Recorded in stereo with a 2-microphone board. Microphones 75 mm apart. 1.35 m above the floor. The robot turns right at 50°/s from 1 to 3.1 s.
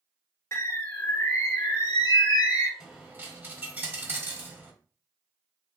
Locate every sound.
0.5 s a bird: 35° left, 1.3 m; by 2.7 s 120° left, 1.3 m
2.8 s a dropped coin: 10° right (ahead or behind), 1.6 m; by 4.7 s 25° right (ahead or behind), 1.6 m